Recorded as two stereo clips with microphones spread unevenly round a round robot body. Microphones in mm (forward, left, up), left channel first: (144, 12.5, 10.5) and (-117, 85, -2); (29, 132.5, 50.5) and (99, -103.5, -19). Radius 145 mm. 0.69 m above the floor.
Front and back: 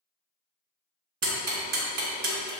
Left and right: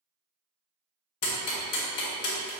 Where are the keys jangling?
No keys jangling in this recording.